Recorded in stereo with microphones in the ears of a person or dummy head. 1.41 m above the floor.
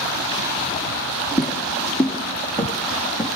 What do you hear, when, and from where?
1.4 s footsteps: centre (ahead or behind), 3 m; by 3.3 s 10° right (ahead or behind), 4 m